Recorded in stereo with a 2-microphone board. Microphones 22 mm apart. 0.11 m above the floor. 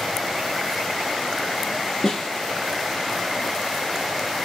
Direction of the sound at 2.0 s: 35° left (ahead or behind).